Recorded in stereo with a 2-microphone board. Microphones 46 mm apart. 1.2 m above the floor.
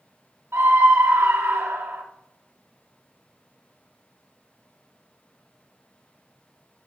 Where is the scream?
70° right (ahead or behind), 1.4 m.